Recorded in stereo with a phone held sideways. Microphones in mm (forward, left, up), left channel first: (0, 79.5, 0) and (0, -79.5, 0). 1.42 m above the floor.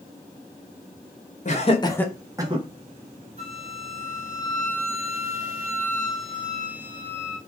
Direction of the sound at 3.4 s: 40° right (ahead or behind).